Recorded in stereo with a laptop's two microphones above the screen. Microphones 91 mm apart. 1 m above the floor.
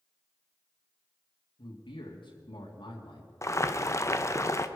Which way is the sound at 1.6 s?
70° left (ahead or behind).